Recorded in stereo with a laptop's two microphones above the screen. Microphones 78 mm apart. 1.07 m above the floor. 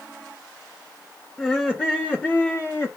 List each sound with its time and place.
1.4 s laughter: 15° left (ahead or behind), 1.7 m; by 2.9 s 30° left (ahead or behind), 1.0 m